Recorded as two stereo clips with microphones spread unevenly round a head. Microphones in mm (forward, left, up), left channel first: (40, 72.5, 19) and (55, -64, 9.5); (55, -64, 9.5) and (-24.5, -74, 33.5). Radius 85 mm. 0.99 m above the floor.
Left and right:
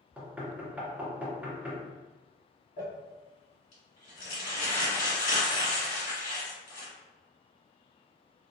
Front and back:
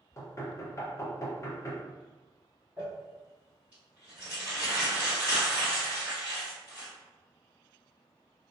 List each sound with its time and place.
0.2 s knocking: 10° right, 0.7 m
2.8 s crumpling: 105° left, 1.5 m